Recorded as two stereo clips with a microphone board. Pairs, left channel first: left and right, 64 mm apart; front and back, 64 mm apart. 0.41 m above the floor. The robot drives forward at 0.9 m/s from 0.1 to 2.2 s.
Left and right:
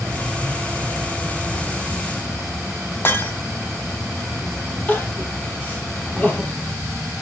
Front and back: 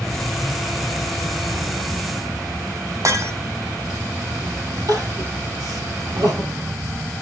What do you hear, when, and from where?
0.0 s an insect: 75° right, 1.1 m; by 7.2 s 150° right, 1.9 m
3.0 s breaking glass: 145° left, 1.5 m
4.9 s crying: 155° left, 3.5 m